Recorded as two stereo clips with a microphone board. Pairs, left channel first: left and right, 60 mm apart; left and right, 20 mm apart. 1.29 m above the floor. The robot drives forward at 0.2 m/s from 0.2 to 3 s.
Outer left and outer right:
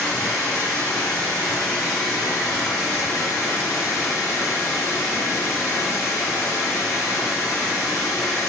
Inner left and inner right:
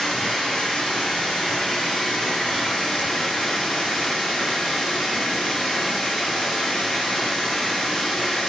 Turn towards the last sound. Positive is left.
turn(degrees=85)